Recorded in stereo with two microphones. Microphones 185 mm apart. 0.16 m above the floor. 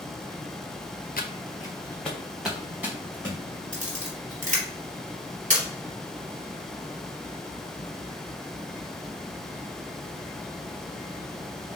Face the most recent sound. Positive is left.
turn(degrees=-45)  # may be behind; listen again after turning